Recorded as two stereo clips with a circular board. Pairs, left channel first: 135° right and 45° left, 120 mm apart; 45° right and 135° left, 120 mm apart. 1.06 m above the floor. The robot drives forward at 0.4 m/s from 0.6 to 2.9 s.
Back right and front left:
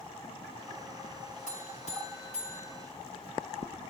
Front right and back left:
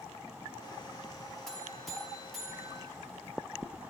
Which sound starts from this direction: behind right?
A buzzer, at 1.5 s.